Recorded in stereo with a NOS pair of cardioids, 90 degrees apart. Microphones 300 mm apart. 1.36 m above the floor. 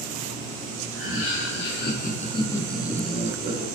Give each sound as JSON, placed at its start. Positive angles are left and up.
{"t": 0.9, "sound": "laughter", "azimuth_deg": 50, "distance_m": 1.3}